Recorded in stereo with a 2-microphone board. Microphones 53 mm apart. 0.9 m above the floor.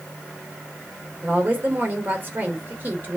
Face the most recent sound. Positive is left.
turn(degrees=-40)  # may be behind; listen again after turning